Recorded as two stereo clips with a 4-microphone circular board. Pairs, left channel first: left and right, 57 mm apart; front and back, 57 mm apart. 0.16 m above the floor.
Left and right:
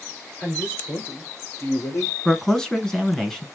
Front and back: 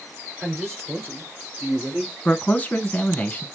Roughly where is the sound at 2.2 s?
Ahead.